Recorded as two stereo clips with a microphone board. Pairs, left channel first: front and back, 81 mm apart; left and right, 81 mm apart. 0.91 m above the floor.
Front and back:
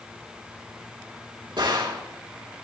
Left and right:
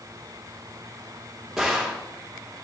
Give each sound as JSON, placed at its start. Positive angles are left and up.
{"t": 1.6, "sound": "a gunshot", "azimuth_deg": -175, "distance_m": 2.5}